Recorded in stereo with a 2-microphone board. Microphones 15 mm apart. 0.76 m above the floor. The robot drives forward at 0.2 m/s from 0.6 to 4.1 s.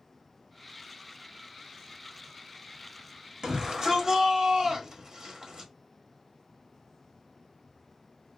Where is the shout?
55° right (ahead or behind), 1.1 m.